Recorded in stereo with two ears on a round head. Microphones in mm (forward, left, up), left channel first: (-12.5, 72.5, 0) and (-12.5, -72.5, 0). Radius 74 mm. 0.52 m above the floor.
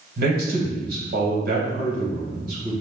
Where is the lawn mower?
No lawn mower in this recording.